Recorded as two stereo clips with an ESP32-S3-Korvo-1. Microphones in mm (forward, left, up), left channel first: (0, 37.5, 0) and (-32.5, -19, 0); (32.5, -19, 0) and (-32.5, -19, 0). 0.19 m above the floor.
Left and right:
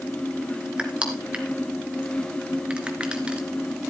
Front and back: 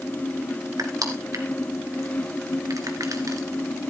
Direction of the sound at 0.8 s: 170° left.